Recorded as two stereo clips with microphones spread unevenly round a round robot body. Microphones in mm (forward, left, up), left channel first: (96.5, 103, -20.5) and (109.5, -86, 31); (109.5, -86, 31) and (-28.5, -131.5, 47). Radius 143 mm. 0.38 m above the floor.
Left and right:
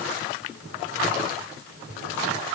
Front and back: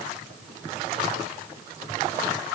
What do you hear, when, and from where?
Only background noise.